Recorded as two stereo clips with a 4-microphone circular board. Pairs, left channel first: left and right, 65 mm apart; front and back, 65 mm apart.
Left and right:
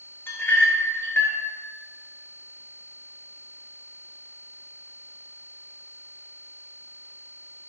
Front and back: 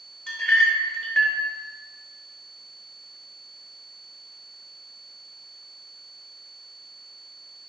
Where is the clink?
60° left, 0.7 m.